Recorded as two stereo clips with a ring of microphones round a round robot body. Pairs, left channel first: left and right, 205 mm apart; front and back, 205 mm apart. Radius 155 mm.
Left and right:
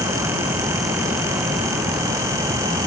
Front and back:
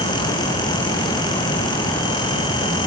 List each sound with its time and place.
Only background noise.